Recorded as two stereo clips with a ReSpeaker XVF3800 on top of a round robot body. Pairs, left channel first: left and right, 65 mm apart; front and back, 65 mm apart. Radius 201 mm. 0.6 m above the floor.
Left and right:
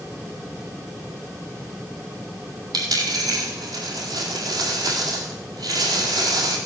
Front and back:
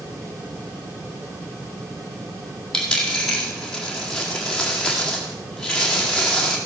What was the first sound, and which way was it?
A dropped coin, 80° right.